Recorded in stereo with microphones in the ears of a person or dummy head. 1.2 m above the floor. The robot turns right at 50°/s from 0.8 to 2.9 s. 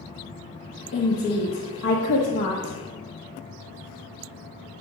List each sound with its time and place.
0.9 s a woman speaking: 70° left, 1.1 m; by 2.8 s 165° left, 1.1 m